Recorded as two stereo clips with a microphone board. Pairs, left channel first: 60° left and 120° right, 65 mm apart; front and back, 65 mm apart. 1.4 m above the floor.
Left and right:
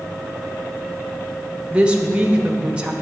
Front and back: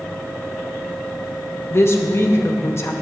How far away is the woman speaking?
About 0.8 m.